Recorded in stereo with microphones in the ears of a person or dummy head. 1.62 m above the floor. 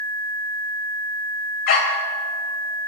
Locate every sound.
1.7 s a dog barking: 50° left (ahead or behind), 2.5 m